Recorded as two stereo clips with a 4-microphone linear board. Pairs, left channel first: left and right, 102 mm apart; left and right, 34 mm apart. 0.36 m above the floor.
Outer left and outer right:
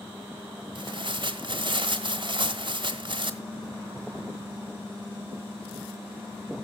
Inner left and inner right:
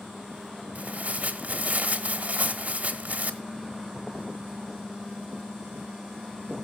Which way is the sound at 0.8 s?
50° right (ahead or behind).